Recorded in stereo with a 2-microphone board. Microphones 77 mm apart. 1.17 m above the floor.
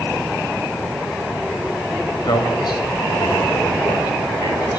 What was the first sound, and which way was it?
A man speaking, 65° left (ahead or behind).